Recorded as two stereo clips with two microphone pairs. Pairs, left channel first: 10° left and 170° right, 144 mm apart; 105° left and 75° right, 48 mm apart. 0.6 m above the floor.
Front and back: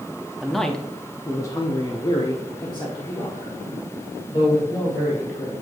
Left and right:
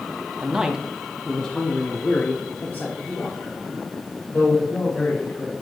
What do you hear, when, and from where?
0.4 s a man speaking: 85° right, 0.7 m; by 5.5 s 65° left, 2.5 m